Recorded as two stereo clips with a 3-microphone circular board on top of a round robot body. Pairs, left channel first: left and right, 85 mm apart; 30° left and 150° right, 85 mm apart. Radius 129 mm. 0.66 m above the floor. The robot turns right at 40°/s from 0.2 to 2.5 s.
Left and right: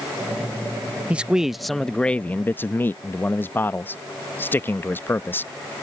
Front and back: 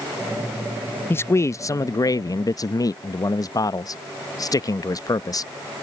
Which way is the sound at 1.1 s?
20° right.